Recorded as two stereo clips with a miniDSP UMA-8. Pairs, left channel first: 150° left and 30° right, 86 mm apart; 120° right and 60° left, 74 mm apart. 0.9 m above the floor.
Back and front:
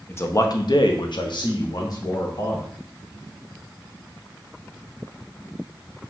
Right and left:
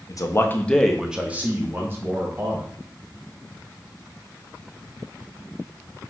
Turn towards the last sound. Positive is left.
turn(degrees=105)